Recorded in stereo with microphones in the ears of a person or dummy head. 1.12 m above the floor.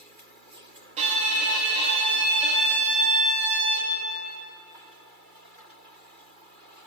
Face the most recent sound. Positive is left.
turn(degrees=-35)  # may be behind; listen again after turning